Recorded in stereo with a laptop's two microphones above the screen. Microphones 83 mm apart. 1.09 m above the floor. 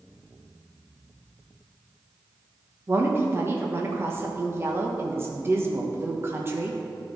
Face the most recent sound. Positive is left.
turn(degrees=-30)  # may be behind; listen again after turning